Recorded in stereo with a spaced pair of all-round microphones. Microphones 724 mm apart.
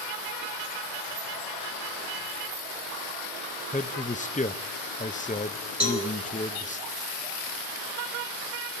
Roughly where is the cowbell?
Right.